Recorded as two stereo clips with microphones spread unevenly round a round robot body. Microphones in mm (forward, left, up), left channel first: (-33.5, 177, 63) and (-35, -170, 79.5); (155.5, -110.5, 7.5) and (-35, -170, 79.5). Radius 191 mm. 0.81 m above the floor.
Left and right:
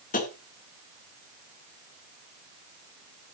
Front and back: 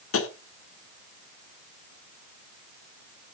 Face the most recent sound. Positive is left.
turn(degrees=20)